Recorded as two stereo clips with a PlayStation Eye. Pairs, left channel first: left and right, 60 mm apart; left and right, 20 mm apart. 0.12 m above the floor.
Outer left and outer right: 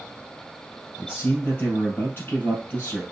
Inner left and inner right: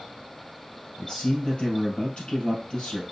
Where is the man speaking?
45° left (ahead or behind), 2.5 m.